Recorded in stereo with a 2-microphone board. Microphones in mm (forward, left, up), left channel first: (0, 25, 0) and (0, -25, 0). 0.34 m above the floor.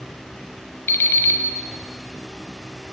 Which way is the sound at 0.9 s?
60° left (ahead or behind).